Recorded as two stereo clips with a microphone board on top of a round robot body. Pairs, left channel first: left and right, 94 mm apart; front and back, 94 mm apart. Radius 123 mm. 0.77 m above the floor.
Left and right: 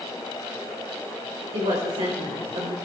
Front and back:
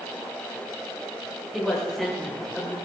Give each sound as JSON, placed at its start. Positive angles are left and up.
{"t": 1.5, "sound": "a woman speaking", "azimuth_deg": -90, "distance_m": 4.0}